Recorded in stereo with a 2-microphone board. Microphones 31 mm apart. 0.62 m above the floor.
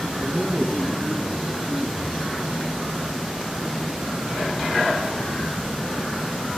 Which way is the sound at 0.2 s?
Centre (ahead or behind).